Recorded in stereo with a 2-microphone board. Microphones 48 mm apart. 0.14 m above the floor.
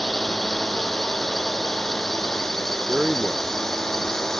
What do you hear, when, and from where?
0.0 s a drone: 5° left (ahead or behind); by 4.4 s 10° left (ahead or behind)
2.9 s a man speaking: 20° right (ahead or behind)